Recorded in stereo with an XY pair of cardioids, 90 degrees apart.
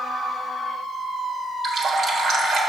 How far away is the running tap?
About 1.3 m.